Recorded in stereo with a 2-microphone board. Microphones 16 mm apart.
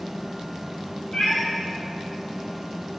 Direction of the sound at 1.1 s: 45° left (ahead or behind).